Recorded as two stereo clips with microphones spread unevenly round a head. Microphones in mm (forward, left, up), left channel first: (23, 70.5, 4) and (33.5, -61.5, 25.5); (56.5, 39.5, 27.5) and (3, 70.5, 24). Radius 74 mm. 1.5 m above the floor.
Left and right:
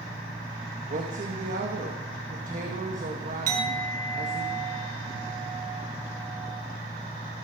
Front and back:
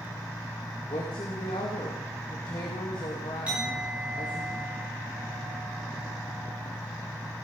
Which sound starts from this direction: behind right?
A clink, at 3.5 s.